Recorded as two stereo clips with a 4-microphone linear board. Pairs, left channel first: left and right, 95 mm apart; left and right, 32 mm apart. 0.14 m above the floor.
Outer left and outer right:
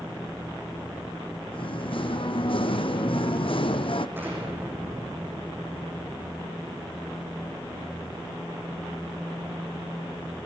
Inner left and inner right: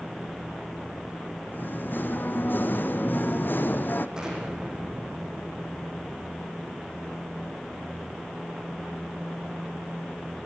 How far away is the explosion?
About 8.5 m.